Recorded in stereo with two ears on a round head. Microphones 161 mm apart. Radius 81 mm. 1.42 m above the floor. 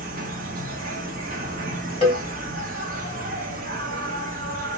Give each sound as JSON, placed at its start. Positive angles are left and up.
{"t": 0.0, "sound": "an insect", "side_deg": -50, "distance_m": 0.8}
{"t": 2.0, "sound": "a cowbell", "side_deg": 30, "distance_m": 1.8}